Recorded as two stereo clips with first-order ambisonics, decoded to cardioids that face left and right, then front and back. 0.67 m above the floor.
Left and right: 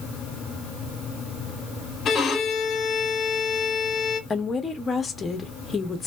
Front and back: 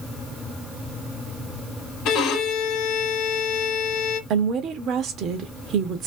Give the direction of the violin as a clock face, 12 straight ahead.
11 o'clock.